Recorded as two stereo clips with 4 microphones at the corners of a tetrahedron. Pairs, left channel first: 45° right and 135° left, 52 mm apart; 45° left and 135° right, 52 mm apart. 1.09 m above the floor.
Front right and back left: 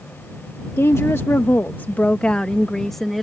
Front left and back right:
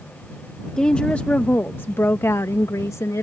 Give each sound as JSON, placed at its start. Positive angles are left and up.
{"t": 0.8, "sound": "a woman speaking", "azimuth_deg": -30}